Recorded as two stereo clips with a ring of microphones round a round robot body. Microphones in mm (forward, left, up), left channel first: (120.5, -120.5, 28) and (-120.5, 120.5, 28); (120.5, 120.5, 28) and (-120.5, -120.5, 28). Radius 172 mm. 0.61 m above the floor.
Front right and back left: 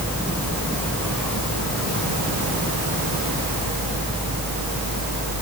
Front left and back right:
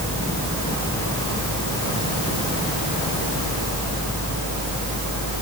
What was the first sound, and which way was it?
Only background noise.